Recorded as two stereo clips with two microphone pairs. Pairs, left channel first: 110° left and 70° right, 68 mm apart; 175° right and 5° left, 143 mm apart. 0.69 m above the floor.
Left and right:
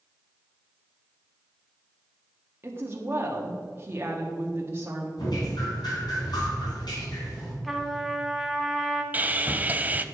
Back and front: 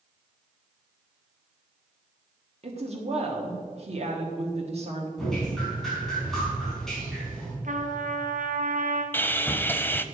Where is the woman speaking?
20° right, 1.4 m.